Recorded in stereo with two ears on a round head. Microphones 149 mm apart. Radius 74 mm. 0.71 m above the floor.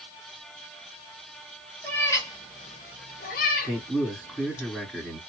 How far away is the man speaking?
About 1.8 m.